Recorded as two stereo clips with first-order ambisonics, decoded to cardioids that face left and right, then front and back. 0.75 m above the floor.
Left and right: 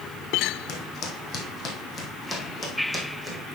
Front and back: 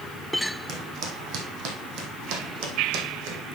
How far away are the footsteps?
About 2.0 m.